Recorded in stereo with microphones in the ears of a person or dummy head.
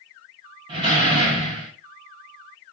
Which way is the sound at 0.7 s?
30° right (ahead or behind).